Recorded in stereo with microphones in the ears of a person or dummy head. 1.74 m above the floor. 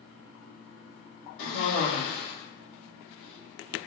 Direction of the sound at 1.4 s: 65° left (ahead or behind).